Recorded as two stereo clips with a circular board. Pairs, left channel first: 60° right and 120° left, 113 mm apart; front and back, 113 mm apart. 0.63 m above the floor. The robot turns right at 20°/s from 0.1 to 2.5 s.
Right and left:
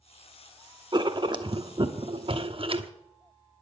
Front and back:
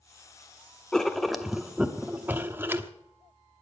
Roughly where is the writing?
Left.